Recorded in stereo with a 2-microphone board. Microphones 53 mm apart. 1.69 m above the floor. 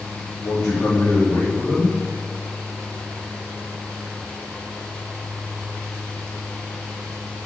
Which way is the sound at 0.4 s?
50° left (ahead or behind).